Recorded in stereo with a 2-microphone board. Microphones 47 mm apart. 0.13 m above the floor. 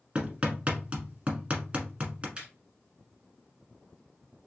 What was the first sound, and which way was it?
Hammering, 30° right (ahead or behind).